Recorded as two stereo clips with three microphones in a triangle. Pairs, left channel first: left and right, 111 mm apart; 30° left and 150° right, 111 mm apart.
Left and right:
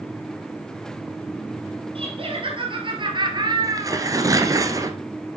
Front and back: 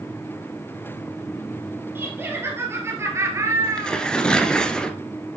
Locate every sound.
1.9 s laughter: 85° right, 3 m; by 4.1 s 120° right, 1.9 m
3.6 s tearing paper: 50° right, 1.3 m